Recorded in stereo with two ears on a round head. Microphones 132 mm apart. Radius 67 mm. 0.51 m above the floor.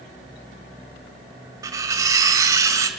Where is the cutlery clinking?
20° right (ahead or behind), 1.4 m.